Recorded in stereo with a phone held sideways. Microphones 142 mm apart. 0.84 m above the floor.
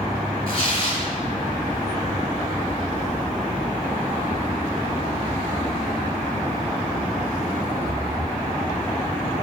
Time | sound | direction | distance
0.5 | tearing paper | 45° left (ahead or behind) | 3.5 m